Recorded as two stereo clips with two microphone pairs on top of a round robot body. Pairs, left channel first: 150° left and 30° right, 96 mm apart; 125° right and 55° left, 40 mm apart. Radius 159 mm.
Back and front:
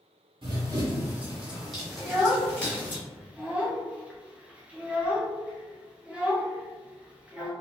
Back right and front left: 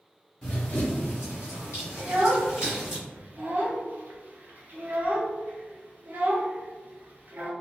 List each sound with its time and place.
0.4 s running footsteps: 60° right, 0.6 m; by 3.0 s 130° right, 1.5 m
2.0 s a child speaking: 50° left, 0.9 m